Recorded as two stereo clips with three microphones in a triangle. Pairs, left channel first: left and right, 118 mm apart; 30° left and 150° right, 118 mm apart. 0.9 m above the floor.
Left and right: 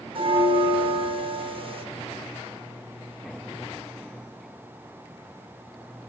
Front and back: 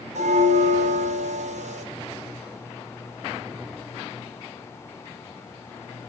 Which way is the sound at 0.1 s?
135° right.